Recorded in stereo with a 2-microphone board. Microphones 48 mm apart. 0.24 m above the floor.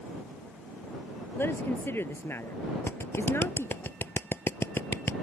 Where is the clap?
50° left (ahead or behind).